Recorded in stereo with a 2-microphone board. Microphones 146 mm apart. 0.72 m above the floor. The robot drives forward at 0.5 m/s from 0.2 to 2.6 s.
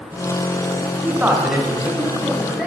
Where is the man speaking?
10° right (ahead or behind), 0.5 m; by 2.7 s 5° right (ahead or behind), 1.1 m.